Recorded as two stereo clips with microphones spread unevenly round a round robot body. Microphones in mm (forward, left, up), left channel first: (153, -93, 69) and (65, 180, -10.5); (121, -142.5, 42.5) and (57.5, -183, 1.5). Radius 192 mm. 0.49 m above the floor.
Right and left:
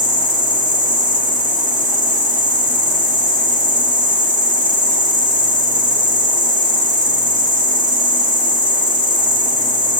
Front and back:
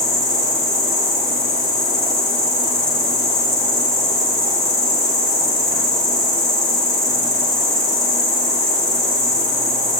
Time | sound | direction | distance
0.0 | an insect | 75° left | 1.6 m